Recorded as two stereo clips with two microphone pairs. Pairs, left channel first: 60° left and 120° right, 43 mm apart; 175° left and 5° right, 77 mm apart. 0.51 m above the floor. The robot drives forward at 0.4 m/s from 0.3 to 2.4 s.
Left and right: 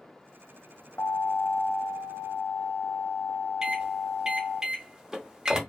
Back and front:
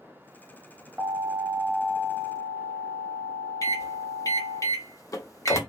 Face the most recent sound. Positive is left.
turn(degrees=170)